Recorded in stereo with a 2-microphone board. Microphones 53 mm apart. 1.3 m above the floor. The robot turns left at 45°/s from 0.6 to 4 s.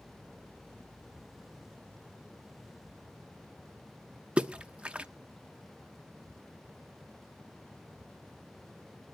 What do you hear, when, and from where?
4.4 s a splash: 20° right (ahead or behind), 0.6 m